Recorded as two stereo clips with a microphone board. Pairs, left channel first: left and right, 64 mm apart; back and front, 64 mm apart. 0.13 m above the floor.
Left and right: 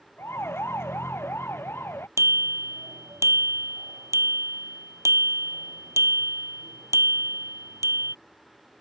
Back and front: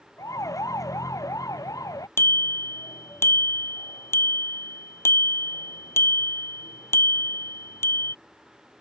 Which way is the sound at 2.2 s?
130° right.